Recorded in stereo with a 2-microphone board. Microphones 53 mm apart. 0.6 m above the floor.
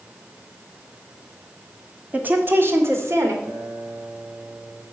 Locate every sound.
2.1 s a woman speaking: 30° right (ahead or behind), 1.6 m; by 3.3 s 60° right (ahead or behind), 2.5 m
3.4 s a guitar: 35° right (ahead or behind), 4 m